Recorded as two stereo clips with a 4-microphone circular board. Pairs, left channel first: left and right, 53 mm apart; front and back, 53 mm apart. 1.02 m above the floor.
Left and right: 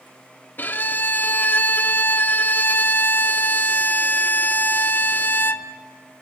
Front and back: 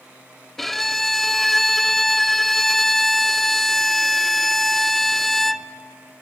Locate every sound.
0.6 s a violin: 80° left, 0.6 m